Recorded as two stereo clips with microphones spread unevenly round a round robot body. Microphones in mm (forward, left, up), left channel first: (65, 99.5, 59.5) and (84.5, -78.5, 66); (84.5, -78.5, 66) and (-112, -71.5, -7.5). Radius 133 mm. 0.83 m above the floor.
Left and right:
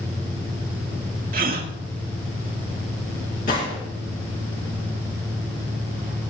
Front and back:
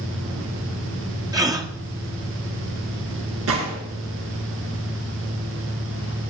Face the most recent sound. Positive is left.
turn(degrees=150)